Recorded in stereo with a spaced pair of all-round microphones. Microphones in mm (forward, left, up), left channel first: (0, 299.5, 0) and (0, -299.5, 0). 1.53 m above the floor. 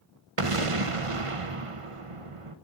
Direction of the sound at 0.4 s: 65° right (ahead or behind).